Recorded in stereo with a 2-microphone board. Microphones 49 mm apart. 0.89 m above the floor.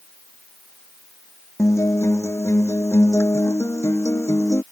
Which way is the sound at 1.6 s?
70° left (ahead or behind).